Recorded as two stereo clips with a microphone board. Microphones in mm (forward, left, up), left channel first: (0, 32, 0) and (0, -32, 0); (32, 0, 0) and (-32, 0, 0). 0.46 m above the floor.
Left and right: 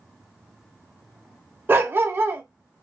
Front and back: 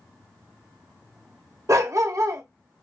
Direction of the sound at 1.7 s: 145° right.